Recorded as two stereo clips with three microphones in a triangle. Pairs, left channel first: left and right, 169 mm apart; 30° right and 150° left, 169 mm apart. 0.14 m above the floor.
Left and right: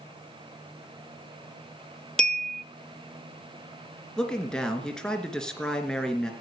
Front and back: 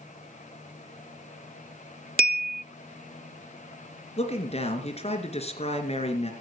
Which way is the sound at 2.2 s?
175° left.